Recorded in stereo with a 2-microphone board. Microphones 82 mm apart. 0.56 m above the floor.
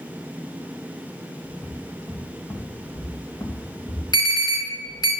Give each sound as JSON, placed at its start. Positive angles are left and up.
{"t": 1.4, "sound": "footsteps", "side_deg": 5, "distance_m": 2.0}
{"t": 4.1, "sound": "an alarm", "side_deg": 50, "distance_m": 3.5}